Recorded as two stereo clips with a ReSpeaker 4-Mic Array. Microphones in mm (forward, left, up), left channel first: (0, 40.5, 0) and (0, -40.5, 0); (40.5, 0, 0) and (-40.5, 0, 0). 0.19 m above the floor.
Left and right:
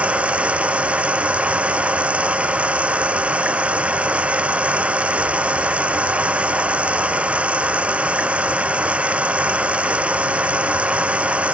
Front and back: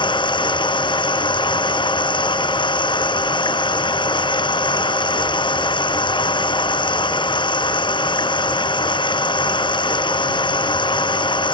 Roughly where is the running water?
Ahead.